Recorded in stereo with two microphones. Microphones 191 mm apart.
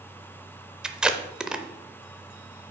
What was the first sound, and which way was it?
Tape being pulled, 5° right (ahead or behind).